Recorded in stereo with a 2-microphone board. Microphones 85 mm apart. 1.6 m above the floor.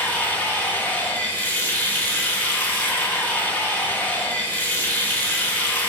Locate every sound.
0.0 s running water: 20° left (ahead or behind), 1.0 m